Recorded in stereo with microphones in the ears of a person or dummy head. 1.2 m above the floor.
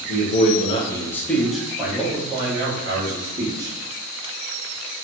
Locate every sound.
0.1 s a man speaking: 50° left (ahead or behind), 0.6 m; by 3.7 s 30° right (ahead or behind), 1.8 m